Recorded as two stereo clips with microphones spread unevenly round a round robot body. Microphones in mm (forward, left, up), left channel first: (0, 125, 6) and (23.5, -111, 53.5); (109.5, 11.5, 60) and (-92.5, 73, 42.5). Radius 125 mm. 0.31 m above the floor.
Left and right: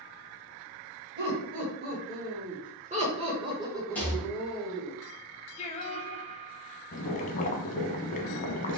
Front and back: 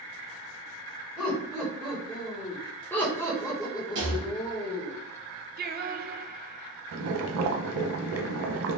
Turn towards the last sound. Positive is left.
turn(degrees=155)